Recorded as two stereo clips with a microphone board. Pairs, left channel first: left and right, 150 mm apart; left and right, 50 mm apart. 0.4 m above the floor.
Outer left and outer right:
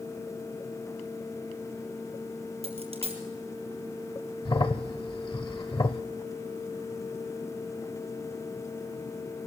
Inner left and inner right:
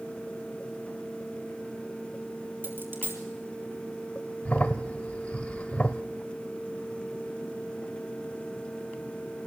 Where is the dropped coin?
45° right (ahead or behind), 3 m.